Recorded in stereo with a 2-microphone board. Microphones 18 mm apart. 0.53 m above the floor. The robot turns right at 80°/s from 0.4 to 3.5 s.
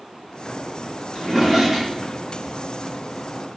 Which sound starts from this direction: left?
A drawer, at 1.1 s.